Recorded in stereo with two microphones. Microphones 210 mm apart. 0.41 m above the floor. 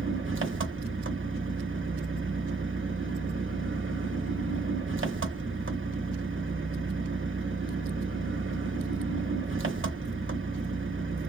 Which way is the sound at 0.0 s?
70° right (ahead or behind).